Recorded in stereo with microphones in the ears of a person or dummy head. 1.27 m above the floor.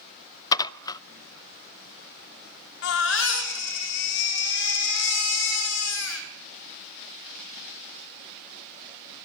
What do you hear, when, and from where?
0.5 s dishes clattering: 20° left (ahead or behind), 0.5 m
2.8 s a baby crying: 70° left (ahead or behind), 3 m